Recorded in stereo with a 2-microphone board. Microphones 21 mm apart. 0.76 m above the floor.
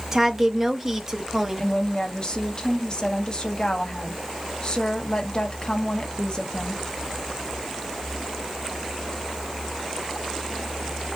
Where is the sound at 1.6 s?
40° left (ahead or behind), 1.1 m.